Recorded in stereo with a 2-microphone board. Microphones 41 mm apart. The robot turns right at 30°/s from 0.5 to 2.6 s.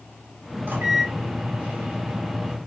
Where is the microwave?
85° right, 1.4 m; by 2.6 s 30° right, 1.4 m.